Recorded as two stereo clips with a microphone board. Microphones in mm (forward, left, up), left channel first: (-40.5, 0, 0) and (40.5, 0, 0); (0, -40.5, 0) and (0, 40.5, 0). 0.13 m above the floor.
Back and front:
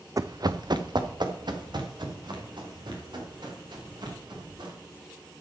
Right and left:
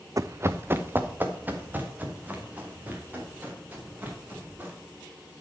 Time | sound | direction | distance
0.2 | running footsteps | 45° left | 0.5 m